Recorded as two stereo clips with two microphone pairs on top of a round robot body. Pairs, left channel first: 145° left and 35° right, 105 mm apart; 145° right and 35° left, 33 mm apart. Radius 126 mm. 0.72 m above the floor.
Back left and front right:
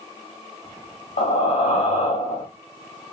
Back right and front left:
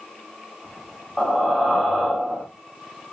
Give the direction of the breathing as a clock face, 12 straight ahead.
8 o'clock.